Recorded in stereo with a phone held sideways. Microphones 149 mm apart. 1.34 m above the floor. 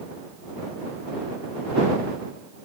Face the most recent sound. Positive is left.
No sound to turn to.